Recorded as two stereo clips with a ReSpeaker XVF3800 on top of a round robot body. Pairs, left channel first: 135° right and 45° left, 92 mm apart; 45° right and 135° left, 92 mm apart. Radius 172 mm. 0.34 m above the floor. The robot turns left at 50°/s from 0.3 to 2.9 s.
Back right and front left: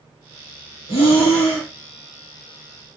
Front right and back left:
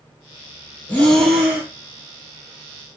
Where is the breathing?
115° right, 1.7 m; by 1.7 s 155° right, 1.7 m.